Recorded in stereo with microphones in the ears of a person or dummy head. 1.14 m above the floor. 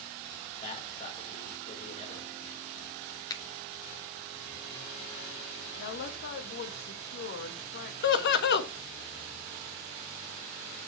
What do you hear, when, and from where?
0.6 s a man speaking: 30° left (ahead or behind), 5 m
3.3 s a finger snap: 25° left (ahead or behind), 1.1 m
5.8 s a woman speaking: 55° left (ahead or behind), 1.5 m
8.0 s laughter: 60° left (ahead or behind), 1.3 m